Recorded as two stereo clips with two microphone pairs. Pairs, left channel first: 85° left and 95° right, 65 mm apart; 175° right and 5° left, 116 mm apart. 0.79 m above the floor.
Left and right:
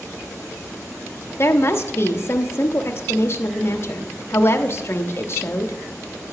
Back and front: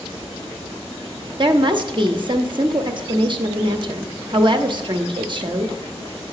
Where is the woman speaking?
40° left, 0.9 m.